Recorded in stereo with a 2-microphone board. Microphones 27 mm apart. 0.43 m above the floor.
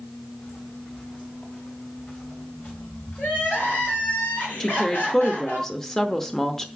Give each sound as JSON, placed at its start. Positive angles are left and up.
{"t": 0.4, "sound": "footsteps", "side_deg": 60, "distance_m": 2.5}
{"t": 3.2, "sound": "crying", "side_deg": 75, "distance_m": 4.0}
{"t": 4.6, "sound": "a woman speaking", "side_deg": 15, "distance_m": 0.8}